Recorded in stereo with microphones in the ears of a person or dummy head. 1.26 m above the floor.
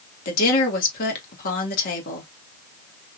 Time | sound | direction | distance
0.2 | a woman speaking | 50° left (ahead or behind) | 2 m